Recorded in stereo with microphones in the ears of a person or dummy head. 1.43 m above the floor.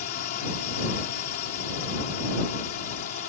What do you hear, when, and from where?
0.0 s a drone: 45° left (ahead or behind)